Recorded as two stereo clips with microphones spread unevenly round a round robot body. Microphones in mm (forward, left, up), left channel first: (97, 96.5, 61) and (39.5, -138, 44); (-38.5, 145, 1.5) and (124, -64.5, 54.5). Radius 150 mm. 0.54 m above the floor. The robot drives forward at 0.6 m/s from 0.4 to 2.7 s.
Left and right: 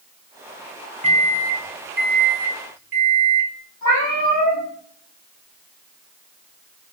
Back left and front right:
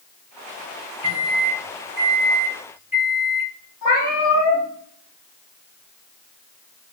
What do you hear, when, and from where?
1.0 s a microwave: 50° right, 0.8 m; by 3.5 s 140° right, 0.9 m
3.8 s a cat meowing: 150° right, 3 m